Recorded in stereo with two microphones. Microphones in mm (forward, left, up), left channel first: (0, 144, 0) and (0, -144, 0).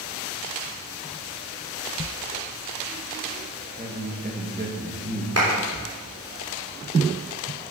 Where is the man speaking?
30° right (ahead or behind), 1.5 m.